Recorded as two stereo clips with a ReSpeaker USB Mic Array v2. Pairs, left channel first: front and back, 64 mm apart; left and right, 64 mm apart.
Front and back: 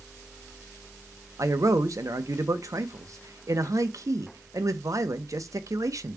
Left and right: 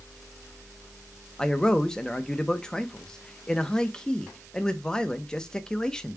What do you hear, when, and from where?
1.4 s a man speaking: 165° left, 0.8 m